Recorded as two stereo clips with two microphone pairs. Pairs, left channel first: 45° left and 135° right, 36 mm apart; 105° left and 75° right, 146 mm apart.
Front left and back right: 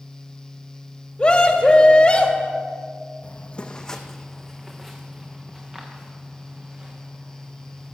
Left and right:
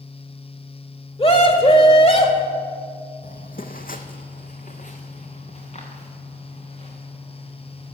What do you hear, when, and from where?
1.2 s a scream: 85° left, 1.4 m
3.2 s footsteps: 85° left, 0.8 m; by 7.9 s 155° left, 4.5 m